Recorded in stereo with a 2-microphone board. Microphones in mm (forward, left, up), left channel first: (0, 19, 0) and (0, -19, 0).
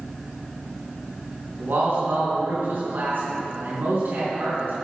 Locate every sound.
1.6 s a man speaking: 70° right (ahead or behind), 3 m